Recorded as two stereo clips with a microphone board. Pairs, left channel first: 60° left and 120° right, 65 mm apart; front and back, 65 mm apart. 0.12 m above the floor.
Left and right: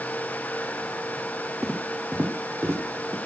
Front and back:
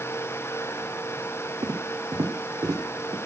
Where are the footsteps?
160° left, 2.5 m; by 3.1 s 170° right, 3.5 m.